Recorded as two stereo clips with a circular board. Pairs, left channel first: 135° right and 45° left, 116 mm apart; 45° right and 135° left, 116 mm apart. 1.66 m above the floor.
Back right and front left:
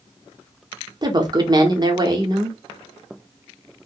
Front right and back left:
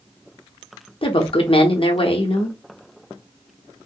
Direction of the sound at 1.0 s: 10° right.